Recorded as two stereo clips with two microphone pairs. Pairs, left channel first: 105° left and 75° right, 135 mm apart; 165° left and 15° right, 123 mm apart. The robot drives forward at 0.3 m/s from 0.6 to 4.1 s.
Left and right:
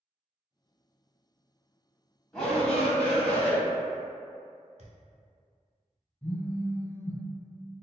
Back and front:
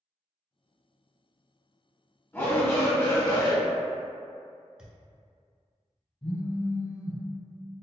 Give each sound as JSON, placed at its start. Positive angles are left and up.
{"t": 2.3, "sound": "a shout", "azimuth_deg": 170, "distance_m": 0.9}
{"t": 4.8, "sound": "a thud", "azimuth_deg": -95, "distance_m": 0.8}
{"t": 6.2, "sound": "a phone buzzing", "azimuth_deg": 165, "distance_m": 1.3}